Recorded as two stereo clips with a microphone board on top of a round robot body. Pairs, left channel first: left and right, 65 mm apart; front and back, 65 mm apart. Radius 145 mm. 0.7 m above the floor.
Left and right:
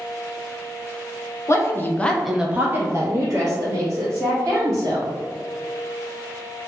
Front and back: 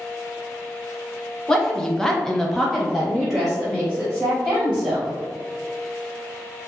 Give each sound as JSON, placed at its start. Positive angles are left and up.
{"t": 1.5, "sound": "a woman speaking", "azimuth_deg": 80, "distance_m": 0.8}